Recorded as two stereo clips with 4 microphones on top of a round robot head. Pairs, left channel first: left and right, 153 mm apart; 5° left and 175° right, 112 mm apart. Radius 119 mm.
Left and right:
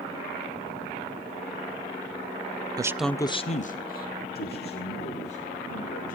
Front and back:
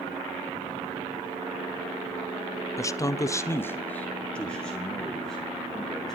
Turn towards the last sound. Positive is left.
turn(degrees=90)